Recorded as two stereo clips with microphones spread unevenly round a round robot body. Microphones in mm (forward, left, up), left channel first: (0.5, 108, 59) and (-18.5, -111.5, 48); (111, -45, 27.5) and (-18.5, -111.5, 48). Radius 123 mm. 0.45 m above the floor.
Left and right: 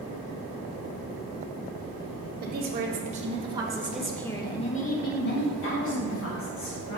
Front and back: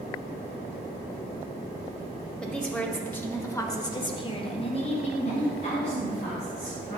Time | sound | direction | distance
2.4 | a woman speaking | 55° right | 2.5 m